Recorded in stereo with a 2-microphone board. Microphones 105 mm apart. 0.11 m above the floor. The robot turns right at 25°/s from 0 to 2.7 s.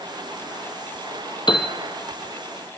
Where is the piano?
45° left (ahead or behind), 2 m; by 1.8 s 50° left (ahead or behind), 2 m.